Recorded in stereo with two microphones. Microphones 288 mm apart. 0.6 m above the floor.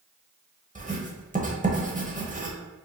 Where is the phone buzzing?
I don't hear a phone buzzing.